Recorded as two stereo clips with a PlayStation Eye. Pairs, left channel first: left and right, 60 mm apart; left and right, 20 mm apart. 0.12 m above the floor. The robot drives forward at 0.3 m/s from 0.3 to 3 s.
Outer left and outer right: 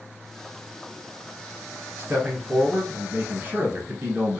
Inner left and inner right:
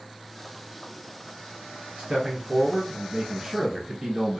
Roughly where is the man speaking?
Right.